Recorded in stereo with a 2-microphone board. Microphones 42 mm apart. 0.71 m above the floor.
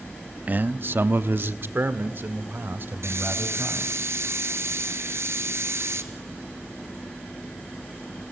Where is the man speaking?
35° right (ahead or behind), 0.6 m; by 4.0 s 50° right (ahead or behind), 4 m.